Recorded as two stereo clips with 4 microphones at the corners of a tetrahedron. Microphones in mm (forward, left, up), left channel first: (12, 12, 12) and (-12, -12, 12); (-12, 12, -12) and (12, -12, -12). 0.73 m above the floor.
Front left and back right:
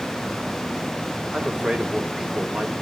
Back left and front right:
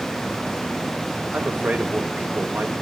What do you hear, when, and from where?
1.3 s a man speaking: 75° right, 3 m